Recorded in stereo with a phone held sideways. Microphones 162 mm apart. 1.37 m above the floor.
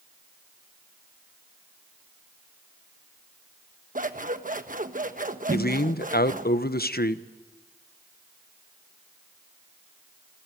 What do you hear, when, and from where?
4.0 s scissors: 55° right (ahead or behind), 1.2 m
5.5 s a man speaking: 75° left (ahead or behind), 1.0 m